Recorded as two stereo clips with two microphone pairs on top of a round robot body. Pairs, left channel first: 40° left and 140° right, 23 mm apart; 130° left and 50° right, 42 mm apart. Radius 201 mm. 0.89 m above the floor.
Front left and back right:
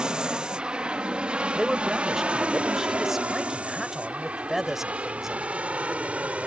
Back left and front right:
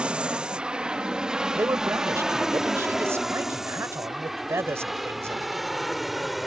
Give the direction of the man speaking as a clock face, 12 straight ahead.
2 o'clock.